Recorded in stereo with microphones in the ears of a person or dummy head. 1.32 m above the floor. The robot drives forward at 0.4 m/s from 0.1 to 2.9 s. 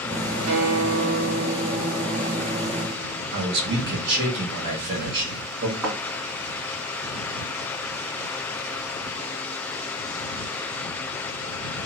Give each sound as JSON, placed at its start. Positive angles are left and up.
{"t": 0.5, "sound": "a guitar", "side_deg": -80, "distance_m": 1.1}
{"t": 3.3, "sound": "a man speaking", "side_deg": -60, "distance_m": 1.7}
{"t": 5.8, "sound": "a thud", "side_deg": -10, "distance_m": 3.0}